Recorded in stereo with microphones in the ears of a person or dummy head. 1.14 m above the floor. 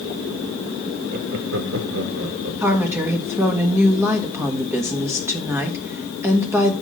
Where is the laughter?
35° right (ahead or behind), 0.8 m; by 2.5 s 65° right (ahead or behind), 2 m.